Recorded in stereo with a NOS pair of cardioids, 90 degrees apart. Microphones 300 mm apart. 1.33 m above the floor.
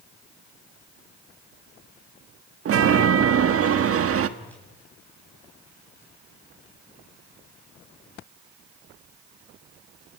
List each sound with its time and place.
2.6 s a chime: 50° right, 1.6 m
4.4 s a whoosh: 5° left, 9.5 m